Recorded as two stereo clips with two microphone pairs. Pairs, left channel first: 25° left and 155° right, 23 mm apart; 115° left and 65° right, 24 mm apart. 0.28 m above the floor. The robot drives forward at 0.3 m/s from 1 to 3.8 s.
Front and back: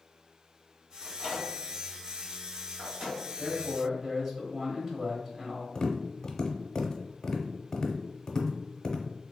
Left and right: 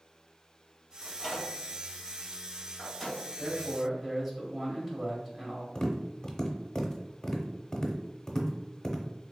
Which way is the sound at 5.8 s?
70° left.